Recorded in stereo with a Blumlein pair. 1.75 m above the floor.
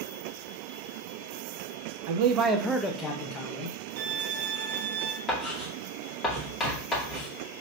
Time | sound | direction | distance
2.1 | a man speaking | 50° right | 0.8 m
4.0 | a violin | 60° right | 1.1 m
5.3 | writing | 25° left | 1.7 m